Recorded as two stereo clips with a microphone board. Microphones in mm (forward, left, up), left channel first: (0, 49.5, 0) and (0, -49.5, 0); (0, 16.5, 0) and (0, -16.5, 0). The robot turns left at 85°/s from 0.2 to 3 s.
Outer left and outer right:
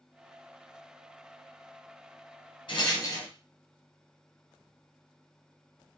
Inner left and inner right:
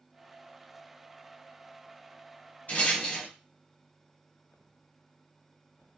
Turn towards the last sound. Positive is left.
turn(degrees=40)  # may be behind; listen again after turning